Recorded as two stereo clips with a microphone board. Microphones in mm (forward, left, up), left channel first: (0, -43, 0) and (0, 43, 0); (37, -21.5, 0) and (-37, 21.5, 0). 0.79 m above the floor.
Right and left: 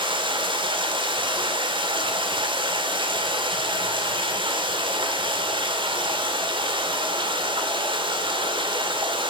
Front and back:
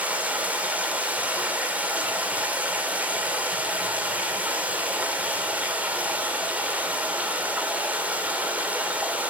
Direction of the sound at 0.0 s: 75° left.